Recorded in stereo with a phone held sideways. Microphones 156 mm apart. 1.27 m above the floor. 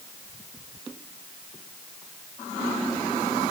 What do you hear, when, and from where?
Only background noise.